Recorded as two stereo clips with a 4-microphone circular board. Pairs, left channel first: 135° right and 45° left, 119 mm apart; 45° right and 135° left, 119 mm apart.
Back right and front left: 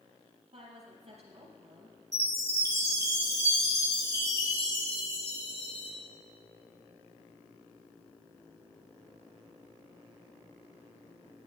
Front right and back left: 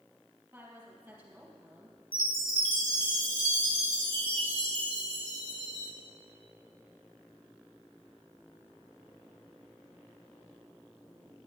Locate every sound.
0.5 s a woman speaking: 70° left, 3.5 m
2.1 s a chime: 105° left, 2.5 m